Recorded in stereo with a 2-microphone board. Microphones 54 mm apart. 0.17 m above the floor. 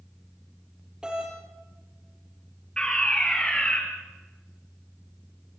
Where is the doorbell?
15° right (ahead or behind), 6 m.